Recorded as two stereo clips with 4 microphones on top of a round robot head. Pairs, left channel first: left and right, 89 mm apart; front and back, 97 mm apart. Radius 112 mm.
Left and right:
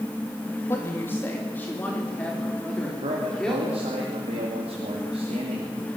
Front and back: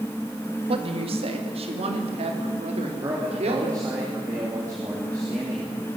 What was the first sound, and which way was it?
A woman speaking, 160° left.